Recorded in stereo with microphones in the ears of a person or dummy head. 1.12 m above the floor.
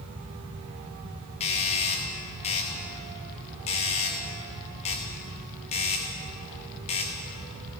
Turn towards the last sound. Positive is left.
turn(degrees=30)  # may be behind; listen again after turning